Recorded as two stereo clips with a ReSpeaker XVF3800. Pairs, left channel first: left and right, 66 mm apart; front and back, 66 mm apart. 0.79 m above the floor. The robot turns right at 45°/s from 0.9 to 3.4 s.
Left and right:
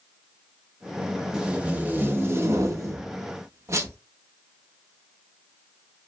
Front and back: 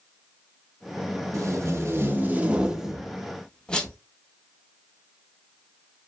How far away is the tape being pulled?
About 0.5 m.